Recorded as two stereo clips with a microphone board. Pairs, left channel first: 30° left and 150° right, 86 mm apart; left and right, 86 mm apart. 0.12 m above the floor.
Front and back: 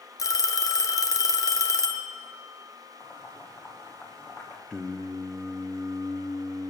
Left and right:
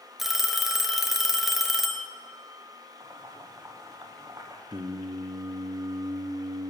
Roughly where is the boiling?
Ahead right.